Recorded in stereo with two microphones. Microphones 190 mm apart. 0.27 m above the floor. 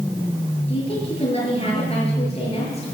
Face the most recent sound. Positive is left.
turn(degrees=30)  # may be behind; listen again after turning